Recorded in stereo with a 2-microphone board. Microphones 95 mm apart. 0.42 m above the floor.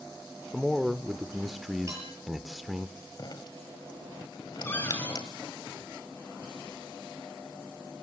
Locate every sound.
0.5 s a man speaking: centre (ahead or behind), 0.9 m
1.9 s dishes clattering: 30° right (ahead or behind), 7 m
3.2 s dripping: 50° left (ahead or behind), 1.9 m
4.7 s a cupboard door: 25° left (ahead or behind), 6 m